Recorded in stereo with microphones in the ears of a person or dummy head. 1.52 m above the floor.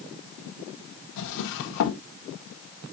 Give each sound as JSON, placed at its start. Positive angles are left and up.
{"t": 1.2, "sound": "a drawer", "side_deg": 60, "distance_m": 1.1}